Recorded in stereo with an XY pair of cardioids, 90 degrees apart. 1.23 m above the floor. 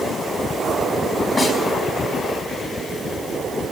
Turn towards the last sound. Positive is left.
turn(degrees=25)